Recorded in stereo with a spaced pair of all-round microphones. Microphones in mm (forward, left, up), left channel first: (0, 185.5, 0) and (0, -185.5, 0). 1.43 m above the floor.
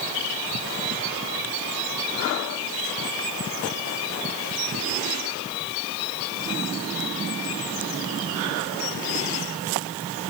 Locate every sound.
Only background noise.